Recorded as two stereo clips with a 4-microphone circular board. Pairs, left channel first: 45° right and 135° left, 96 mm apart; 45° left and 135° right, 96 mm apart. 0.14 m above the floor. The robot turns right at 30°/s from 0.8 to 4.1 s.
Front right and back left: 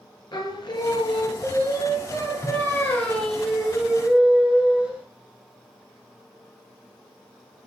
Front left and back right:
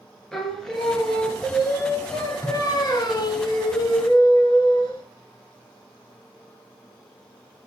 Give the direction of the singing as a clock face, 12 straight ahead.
1 o'clock.